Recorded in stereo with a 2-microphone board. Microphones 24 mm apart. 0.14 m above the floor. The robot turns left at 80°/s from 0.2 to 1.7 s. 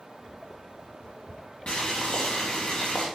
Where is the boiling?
55° left (ahead or behind), 3.5 m; by 3.1 s 60° left (ahead or behind), 3.5 m.